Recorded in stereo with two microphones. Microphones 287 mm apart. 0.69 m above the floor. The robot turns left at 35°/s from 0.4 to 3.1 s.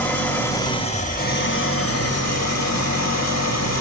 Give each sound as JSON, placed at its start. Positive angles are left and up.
{"t": 0.0, "sound": "an engine running", "azimuth_deg": 175, "distance_m": 0.9}